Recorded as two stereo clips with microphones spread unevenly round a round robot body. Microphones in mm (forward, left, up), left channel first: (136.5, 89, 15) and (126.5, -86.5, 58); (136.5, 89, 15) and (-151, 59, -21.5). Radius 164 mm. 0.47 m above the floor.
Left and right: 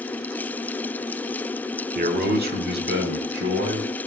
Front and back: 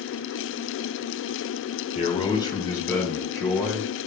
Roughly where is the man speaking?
Ahead right.